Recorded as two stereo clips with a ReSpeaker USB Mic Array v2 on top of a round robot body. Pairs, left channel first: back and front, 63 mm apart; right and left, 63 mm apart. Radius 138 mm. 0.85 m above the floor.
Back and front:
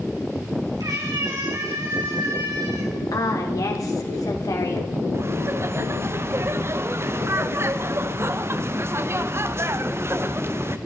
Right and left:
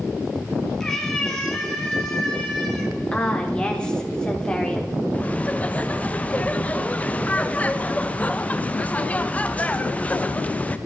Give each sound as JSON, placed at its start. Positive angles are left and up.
{"t": 0.8, "sound": "a cat meowing", "azimuth_deg": -10, "distance_m": 3.0}
{"t": 3.1, "sound": "a woman speaking", "azimuth_deg": -165, "distance_m": 3.5}
{"t": 5.1, "sound": "laughter", "azimuth_deg": -30, "distance_m": 1.0}